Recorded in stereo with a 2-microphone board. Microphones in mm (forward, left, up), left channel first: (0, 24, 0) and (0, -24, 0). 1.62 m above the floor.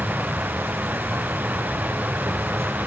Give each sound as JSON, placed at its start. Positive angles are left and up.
{"t": 0.0, "sound": "an insect", "side_deg": -75}